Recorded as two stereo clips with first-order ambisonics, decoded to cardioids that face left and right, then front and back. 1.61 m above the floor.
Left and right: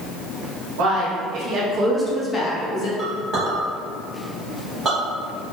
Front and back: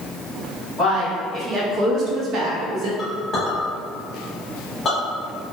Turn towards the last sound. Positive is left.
turn(degrees=-55)